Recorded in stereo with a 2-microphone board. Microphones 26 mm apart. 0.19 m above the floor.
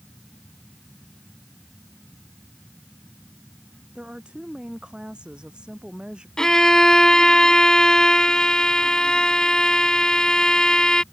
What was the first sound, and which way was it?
A woman speaking, 40° right (ahead or behind).